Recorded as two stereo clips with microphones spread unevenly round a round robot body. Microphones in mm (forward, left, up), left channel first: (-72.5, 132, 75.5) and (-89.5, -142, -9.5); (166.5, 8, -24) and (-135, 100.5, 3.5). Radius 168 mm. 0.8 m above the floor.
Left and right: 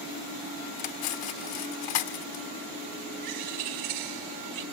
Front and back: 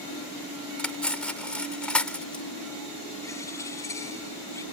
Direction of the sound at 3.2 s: 100° right.